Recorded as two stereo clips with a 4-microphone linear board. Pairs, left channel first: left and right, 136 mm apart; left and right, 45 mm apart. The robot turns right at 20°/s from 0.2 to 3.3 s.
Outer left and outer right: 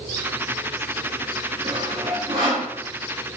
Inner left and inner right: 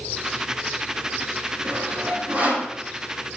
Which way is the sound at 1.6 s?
45° right (ahead or behind).